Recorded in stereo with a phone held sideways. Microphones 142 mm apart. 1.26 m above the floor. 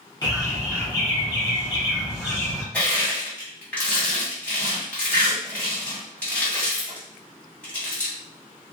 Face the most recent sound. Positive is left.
turn(degrees=10)  # may be behind; listen again after turning